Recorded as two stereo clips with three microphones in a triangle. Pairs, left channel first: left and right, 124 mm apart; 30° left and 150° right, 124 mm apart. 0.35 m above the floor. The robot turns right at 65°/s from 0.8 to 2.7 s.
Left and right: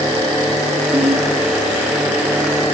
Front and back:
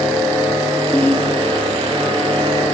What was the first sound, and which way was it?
A ringtone, 50° right.